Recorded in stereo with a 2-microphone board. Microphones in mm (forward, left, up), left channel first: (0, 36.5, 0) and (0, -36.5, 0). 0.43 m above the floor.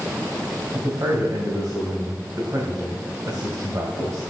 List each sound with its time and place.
0.7 s a man speaking: 45° right (ahead or behind), 2.5 m